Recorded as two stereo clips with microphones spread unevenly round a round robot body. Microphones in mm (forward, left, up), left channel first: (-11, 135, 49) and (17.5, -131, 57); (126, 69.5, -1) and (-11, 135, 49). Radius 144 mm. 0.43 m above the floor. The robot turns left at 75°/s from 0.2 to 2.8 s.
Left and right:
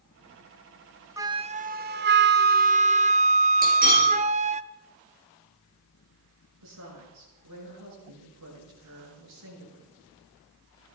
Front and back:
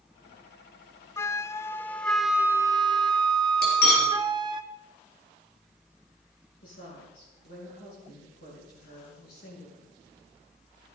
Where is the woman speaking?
55° right, 8 m.